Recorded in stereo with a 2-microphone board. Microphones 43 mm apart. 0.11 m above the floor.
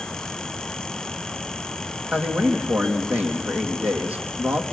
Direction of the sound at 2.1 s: 35° right (ahead or behind).